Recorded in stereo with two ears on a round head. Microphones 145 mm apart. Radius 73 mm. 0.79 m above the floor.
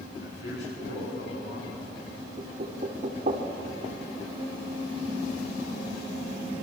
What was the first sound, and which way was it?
A man speaking, 80° left.